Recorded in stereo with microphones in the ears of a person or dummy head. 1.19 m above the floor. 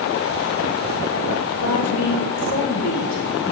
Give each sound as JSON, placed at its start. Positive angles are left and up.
{"t": 1.6, "sound": "a woman speaking", "side_deg": 80, "distance_m": 1.6}